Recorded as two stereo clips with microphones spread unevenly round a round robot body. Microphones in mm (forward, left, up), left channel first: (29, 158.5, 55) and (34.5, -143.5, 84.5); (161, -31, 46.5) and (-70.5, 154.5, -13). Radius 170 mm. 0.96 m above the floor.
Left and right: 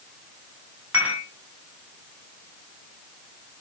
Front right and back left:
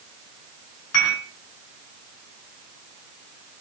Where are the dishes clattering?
5° right, 5 m.